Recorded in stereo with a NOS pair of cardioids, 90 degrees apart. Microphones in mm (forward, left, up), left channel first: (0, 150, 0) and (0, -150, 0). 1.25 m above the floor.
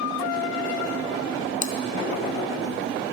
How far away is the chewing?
About 0.8 m.